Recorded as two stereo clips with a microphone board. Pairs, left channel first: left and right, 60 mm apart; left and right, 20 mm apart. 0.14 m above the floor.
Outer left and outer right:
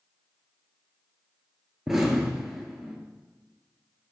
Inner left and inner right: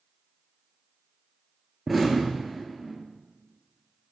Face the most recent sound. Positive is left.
turn(degrees=-5)  # may be behind; listen again after turning